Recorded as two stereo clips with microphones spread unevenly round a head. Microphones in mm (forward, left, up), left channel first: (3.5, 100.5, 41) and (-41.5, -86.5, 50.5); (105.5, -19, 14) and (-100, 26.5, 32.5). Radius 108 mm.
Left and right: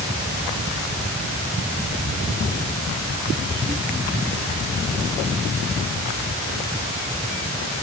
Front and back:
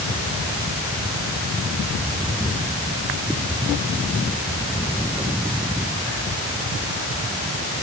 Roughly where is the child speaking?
No child speaking in this recording.